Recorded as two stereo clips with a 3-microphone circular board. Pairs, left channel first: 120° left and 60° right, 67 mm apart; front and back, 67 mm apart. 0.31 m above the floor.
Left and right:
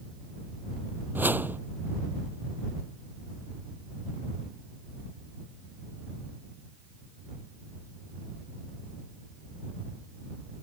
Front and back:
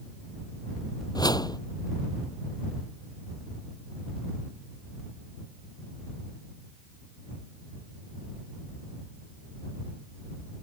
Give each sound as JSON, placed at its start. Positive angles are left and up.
{"t": 1.1, "sound": "a whoosh", "azimuth_deg": 0}